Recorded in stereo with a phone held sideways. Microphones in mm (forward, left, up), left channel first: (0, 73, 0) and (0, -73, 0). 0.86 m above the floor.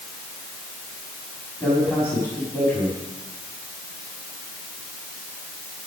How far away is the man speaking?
About 6.5 m.